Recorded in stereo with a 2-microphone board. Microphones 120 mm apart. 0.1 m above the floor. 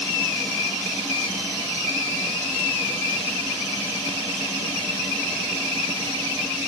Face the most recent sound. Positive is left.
No sound to turn to.